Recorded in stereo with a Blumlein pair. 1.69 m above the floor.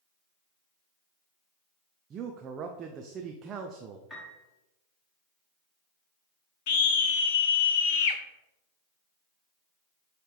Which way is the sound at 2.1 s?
25° right.